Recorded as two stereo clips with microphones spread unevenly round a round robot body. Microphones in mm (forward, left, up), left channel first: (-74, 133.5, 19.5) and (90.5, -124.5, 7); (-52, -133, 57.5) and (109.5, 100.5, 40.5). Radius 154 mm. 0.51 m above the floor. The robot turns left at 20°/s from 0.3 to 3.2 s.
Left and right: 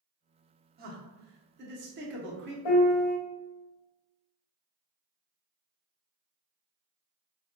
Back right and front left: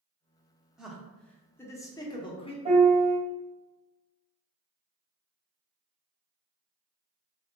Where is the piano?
125° left, 0.7 m; by 3.2 s 115° left, 0.7 m.